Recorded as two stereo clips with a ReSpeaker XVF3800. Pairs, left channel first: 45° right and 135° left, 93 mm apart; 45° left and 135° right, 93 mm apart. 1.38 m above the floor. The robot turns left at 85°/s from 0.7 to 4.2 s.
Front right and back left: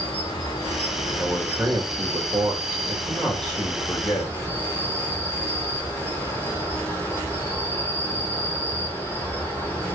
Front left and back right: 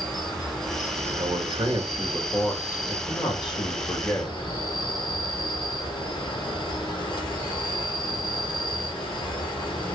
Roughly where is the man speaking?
Behind right.